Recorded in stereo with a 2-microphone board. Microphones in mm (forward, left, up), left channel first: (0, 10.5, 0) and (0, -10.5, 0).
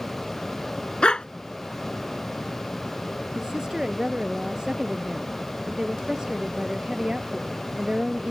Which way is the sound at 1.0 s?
50° left (ahead or behind).